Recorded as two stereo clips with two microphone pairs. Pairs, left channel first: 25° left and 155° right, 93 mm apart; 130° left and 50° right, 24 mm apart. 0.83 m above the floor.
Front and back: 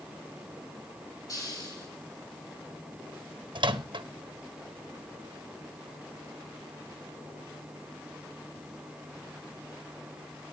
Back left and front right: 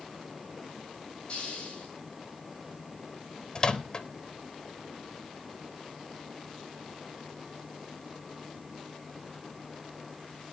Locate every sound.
1.3 s a hiss: 75° left, 10 m
3.5 s a microwave: 175° right, 1.0 m